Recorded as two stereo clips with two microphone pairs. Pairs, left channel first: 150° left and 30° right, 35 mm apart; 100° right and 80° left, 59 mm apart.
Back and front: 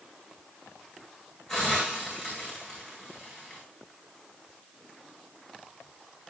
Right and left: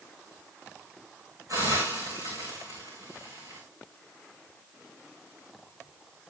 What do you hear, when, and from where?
1.5 s a hiss: 65° left, 7.5 m